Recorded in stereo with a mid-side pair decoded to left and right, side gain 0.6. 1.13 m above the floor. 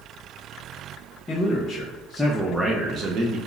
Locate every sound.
1.3 s a man speaking: 30° left, 0.9 m; by 3.4 s 65° right, 0.6 m